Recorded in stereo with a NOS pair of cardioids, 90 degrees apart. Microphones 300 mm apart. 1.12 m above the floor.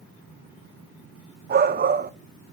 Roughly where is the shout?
Ahead right.